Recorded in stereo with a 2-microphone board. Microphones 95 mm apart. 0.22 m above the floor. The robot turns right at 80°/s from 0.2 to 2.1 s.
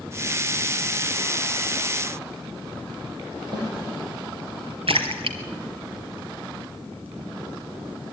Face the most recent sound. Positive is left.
turn(degrees=-75)  # may be behind; listen again after turning